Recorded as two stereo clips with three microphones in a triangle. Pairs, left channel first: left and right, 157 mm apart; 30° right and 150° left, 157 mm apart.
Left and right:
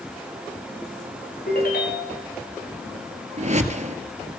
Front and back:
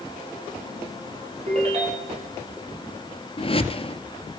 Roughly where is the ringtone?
Left.